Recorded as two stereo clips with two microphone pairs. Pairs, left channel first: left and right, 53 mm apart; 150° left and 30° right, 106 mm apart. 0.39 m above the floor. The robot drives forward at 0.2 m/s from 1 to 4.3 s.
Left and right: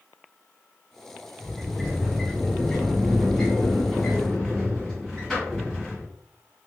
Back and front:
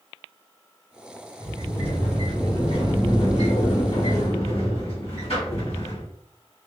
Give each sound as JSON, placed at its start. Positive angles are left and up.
{"t": 1.4, "sound": "a sliding door", "azimuth_deg": 165, "distance_m": 2.0}